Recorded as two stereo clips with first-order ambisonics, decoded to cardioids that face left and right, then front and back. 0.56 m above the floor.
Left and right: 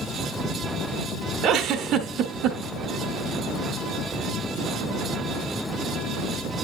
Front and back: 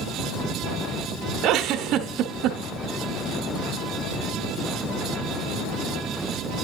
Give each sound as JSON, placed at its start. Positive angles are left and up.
{"t": 1.4, "sound": "a giggle", "azimuth_deg": -135, "distance_m": 1.2}